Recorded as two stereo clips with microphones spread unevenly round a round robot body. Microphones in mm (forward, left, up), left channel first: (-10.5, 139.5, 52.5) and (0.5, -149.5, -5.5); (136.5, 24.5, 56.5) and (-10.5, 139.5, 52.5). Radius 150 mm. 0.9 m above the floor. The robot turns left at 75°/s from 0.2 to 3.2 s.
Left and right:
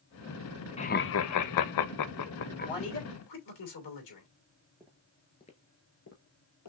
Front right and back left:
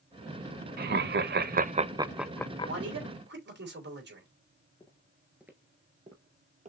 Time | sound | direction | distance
0.8 | laughter | 165° left | 0.6 m
2.6 | a man speaking | 160° left | 3 m
4.8 | footsteps | 5° left | 0.9 m